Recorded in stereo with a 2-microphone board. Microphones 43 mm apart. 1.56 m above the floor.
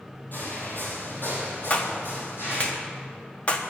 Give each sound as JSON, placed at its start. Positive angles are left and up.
{"t": 0.3, "sound": "footsteps", "side_deg": 50, "distance_m": 3.0}
{"t": 1.7, "sound": "a clap", "side_deg": 30, "distance_m": 1.0}